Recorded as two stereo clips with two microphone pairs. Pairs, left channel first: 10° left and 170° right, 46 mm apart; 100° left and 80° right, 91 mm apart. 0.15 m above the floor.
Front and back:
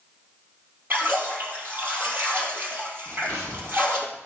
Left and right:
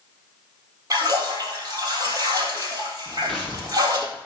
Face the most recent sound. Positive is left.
turn(degrees=175)